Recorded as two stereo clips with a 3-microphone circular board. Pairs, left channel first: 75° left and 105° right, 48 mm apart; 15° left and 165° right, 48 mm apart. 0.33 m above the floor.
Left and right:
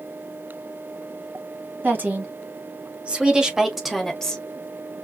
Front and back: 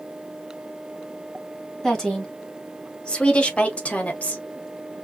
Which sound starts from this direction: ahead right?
A woman speaking, at 1.8 s.